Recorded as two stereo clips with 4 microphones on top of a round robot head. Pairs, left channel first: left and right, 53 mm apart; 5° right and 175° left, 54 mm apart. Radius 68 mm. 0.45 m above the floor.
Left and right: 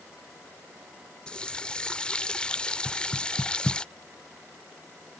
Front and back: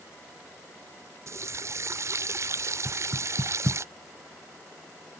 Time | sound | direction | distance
1.3 | a running tap | 160° left | ?
2.9 | knocking | 165° left | ?